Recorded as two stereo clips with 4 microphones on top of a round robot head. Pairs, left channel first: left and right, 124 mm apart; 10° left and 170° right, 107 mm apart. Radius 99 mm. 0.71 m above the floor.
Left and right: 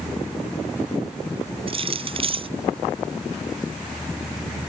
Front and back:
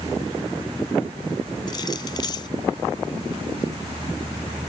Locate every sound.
1.7 s keys jangling: 50° right